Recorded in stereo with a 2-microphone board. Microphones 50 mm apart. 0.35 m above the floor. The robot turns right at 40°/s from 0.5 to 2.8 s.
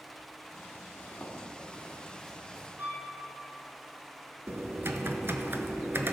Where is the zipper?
50° left (ahead or behind), 2.0 m; by 2.7 s 15° right (ahead or behind), 2.0 m.